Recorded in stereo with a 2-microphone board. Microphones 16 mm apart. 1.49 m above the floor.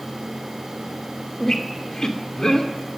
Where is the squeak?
35° left (ahead or behind), 2 m.